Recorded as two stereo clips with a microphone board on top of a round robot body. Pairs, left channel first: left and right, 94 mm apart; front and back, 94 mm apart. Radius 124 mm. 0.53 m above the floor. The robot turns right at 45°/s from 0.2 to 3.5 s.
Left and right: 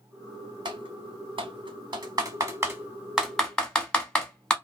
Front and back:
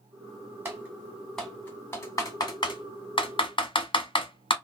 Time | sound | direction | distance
0.7 | typing on a keyboard | 120° right | 1.0 m